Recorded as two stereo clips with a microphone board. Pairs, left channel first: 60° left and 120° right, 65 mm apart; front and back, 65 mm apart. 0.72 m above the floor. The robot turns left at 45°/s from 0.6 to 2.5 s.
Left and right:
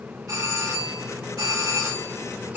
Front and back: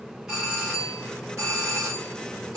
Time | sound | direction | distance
0.3 | a doorbell | 100° right | 3.5 m